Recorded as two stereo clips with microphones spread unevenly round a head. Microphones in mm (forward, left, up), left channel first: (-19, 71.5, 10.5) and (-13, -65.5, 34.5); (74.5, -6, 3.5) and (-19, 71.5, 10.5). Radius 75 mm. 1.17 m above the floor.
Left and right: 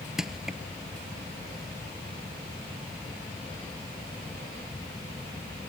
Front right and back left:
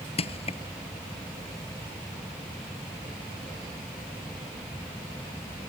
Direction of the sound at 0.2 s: Straight ahead.